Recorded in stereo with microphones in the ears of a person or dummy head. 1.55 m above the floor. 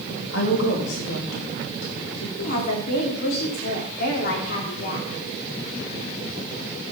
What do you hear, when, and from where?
0.3 s a woman speaking: 80° left, 3 m; by 2.3 s 85° left, 4 m
2.4 s a woman speaking: 60° left (ahead or behind), 3 m